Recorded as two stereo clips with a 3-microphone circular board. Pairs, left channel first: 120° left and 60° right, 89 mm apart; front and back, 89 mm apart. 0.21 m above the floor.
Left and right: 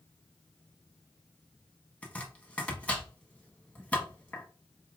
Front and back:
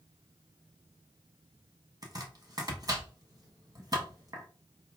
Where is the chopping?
170° right, 1.2 m.